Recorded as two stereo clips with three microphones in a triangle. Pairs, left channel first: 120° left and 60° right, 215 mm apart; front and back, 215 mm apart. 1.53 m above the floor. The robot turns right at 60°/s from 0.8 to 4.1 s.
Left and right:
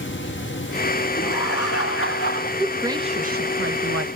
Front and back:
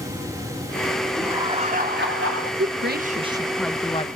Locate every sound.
1.2 s laughter: 90° left, 3.5 m; by 2.5 s 170° left, 3.5 m
2.6 s a woman speaking: 150° right, 1.5 m; by 4.1 s 65° right, 1.5 m